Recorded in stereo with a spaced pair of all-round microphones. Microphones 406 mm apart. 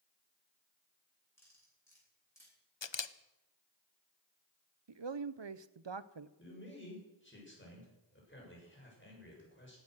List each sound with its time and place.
1.4 s cutlery clinking: 5° left (ahead or behind), 9.5 m
2.8 s a camera shutter: 85° left, 0.7 m
4.9 s a man speaking: 80° right, 0.7 m
6.4 s a man speaking: 25° left (ahead or behind), 7 m